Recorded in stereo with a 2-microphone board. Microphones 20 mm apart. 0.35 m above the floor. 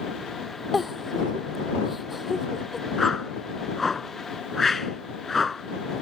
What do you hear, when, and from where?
0.7 s a giggle: 5° right (ahead or behind)
3.0 s a whoosh: 10° left (ahead or behind)